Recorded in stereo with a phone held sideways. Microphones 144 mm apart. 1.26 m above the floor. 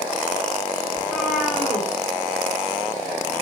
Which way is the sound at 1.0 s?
5° left (ahead or behind).